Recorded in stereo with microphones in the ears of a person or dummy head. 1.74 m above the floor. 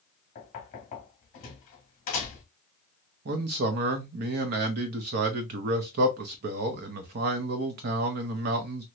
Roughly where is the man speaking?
Right.